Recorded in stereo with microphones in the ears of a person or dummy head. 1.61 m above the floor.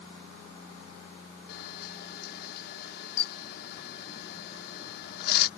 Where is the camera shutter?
60° left (ahead or behind).